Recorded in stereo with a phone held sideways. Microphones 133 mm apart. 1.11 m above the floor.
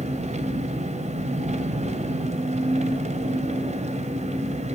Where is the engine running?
55° right (ahead or behind), 2.5 m.